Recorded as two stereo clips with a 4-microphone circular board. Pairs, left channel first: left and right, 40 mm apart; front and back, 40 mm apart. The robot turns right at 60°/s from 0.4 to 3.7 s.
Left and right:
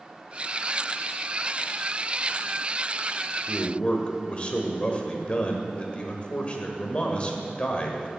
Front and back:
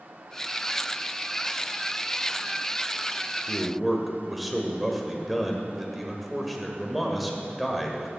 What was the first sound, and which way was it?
A man speaking, 80° left.